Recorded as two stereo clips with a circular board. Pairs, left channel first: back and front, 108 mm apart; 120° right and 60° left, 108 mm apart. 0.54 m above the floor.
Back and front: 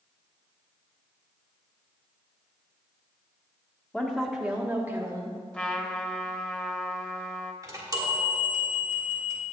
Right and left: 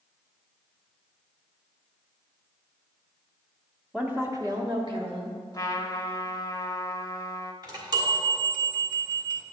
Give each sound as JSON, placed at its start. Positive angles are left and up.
{"t": 3.9, "sound": "a woman speaking", "azimuth_deg": 125, "distance_m": 1.0}
{"t": 5.5, "sound": "a trumpet", "azimuth_deg": -110, "distance_m": 0.7}
{"t": 7.6, "sound": "a chime", "azimuth_deg": 40, "distance_m": 1.6}